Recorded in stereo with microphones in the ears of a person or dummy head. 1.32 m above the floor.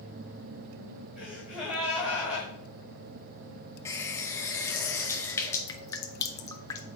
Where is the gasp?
5° right (ahead or behind), 3.5 m.